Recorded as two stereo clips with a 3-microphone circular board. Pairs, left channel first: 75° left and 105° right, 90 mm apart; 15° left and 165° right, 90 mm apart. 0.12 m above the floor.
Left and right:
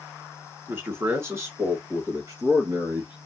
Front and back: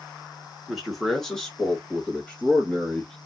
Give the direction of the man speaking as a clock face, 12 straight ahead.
3 o'clock.